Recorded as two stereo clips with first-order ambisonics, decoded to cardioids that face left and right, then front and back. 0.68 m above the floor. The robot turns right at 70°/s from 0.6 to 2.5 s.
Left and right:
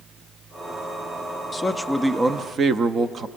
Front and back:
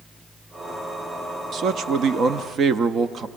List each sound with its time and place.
1.5 s a man speaking: 155° left, 0.6 m; by 3.3 s 140° right, 0.6 m